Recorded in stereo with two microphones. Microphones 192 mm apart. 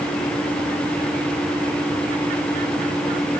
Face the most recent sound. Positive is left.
No sound to turn to.